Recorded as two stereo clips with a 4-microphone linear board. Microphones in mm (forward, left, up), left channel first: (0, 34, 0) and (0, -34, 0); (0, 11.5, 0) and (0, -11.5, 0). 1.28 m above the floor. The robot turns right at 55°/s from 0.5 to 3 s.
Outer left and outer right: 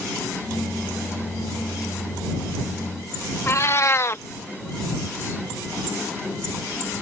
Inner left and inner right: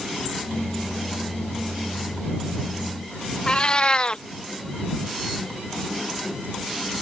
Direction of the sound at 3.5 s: 40° left (ahead or behind).